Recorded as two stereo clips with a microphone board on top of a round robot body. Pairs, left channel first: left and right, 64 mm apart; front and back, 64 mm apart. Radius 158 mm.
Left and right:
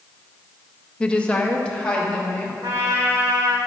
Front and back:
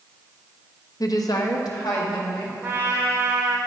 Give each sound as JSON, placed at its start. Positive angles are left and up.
{"t": 1.0, "sound": "a woman speaking", "azimuth_deg": 15, "distance_m": 0.8}
{"t": 2.6, "sound": "a trumpet", "azimuth_deg": -125, "distance_m": 1.6}